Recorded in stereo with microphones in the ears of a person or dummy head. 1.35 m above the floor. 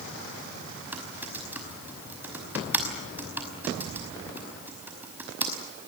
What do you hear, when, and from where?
0.9 s typing on a keyboard: 5° right (ahead or behind), 5.5 m